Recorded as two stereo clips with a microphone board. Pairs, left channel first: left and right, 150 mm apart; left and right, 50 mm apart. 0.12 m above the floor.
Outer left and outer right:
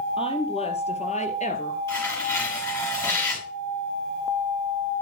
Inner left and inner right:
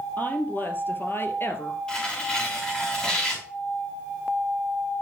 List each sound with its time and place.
0.2 s a woman speaking: 35° left (ahead or behind), 2.5 m; by 1.8 s 55° left (ahead or behind), 2.0 m
1.9 s tearing paper: 20° left (ahead or behind), 6.5 m